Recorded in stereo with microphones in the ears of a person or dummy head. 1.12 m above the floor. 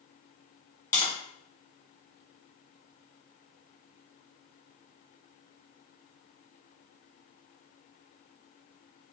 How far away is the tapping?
About 1.8 m.